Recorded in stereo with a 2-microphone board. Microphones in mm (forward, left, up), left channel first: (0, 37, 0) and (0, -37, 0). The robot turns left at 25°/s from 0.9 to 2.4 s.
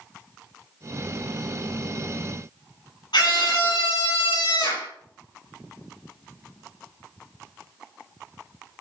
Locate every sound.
3.1 s a scream: 80° left, 7.5 m